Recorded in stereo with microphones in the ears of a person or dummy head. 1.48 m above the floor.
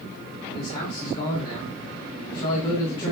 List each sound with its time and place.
0.5 s a man speaking: 30° left (ahead or behind), 4 m